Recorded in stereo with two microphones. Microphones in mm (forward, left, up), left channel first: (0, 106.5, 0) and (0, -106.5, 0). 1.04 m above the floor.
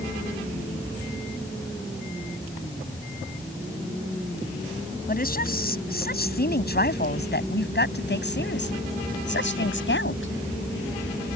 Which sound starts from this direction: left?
A woman speaking, at 5.1 s.